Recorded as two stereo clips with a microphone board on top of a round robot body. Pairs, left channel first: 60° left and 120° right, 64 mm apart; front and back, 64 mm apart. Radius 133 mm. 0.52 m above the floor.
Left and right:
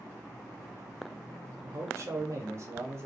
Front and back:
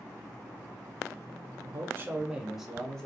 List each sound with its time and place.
1.6 s a man speaking: 160° right, 0.8 m; by 3.1 s 75° right, 1.0 m